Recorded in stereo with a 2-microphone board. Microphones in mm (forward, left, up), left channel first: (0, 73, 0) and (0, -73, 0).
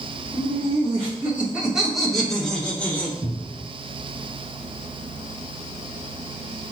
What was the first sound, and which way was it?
Laughter, 25° right (ahead or behind).